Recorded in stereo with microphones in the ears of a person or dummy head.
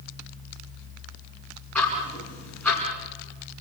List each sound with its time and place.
1.8 s ticking: 5° left (ahead or behind), 5.5 m